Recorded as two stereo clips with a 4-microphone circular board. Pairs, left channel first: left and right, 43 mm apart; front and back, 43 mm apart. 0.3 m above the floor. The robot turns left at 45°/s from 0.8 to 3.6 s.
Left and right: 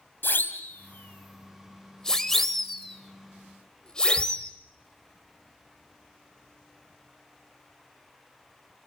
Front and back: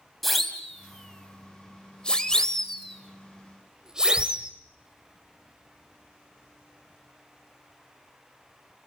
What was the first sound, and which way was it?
A siren, 85° left.